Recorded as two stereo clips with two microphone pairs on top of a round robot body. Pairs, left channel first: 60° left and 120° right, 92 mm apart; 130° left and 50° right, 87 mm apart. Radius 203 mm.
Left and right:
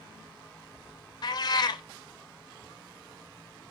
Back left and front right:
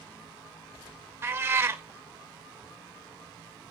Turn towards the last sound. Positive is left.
turn(degrees=15)